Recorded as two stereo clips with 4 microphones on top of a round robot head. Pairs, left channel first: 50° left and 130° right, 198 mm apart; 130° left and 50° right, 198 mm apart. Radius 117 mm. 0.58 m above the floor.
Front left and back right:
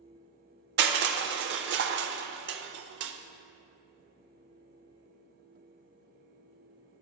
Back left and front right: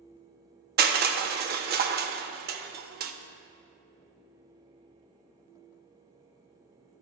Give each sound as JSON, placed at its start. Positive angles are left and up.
{"t": 0.8, "sound": "crushing", "azimuth_deg": -95, "distance_m": 0.5}